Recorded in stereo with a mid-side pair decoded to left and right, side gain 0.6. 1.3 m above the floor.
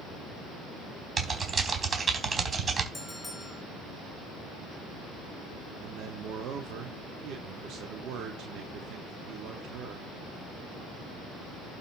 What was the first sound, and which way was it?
Typing on a keyboard, 30° right.